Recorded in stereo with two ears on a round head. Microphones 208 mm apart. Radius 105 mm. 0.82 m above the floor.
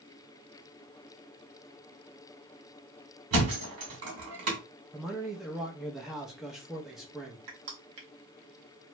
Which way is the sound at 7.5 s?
70° right (ahead or behind).